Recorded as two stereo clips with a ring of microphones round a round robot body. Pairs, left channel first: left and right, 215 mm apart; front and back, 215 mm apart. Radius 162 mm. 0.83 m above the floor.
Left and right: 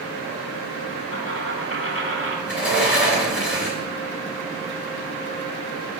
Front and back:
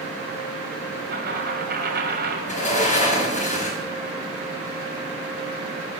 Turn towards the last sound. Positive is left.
turn(degrees=55)